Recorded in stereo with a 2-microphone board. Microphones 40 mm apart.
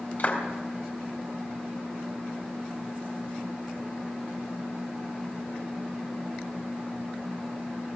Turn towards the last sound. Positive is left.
turn(degrees=50)  # may be behind; listen again after turning